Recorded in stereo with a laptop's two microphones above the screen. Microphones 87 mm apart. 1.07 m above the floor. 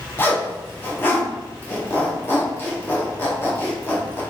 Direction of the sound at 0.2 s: 25° left (ahead or behind).